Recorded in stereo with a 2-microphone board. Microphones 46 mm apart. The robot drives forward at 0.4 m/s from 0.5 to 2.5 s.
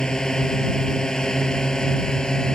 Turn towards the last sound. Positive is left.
turn(degrees=15)  # may be behind; listen again after turning